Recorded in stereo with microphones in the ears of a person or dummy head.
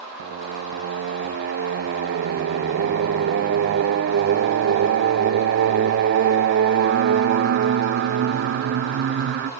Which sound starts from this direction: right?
Singing, at 0.2 s.